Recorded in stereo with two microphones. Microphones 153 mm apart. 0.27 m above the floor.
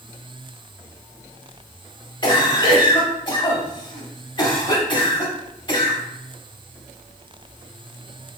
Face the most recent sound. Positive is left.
turn(degrees=30)  # may be behind; listen again after turning